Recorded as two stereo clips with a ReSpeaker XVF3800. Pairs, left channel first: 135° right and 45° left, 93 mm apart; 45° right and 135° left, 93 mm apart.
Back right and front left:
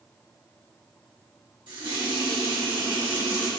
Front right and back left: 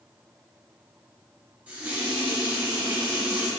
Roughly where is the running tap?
Ahead left.